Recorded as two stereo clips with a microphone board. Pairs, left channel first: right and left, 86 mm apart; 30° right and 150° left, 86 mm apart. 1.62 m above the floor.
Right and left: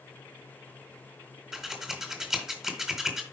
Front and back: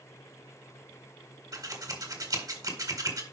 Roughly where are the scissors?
Behind.